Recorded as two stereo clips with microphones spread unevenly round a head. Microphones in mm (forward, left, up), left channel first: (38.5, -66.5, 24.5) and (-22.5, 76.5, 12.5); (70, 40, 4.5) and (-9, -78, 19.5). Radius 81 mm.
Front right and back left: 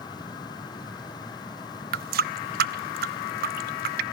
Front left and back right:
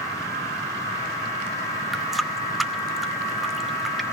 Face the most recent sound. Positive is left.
turn(degrees=145)